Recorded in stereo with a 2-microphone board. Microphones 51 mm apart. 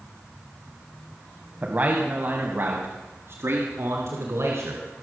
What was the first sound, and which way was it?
A man speaking, 30° right (ahead or behind).